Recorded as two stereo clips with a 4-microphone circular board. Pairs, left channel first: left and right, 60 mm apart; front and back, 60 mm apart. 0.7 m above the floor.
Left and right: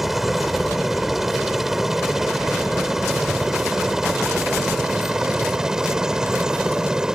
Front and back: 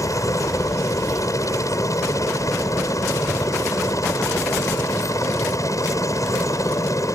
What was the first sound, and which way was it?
A helicopter, 5° right.